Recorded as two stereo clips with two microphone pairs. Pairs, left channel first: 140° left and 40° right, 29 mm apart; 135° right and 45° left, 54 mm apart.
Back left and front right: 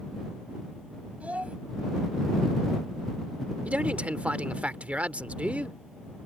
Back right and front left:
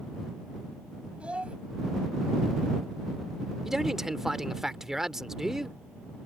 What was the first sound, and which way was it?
A child speaking, 20° right.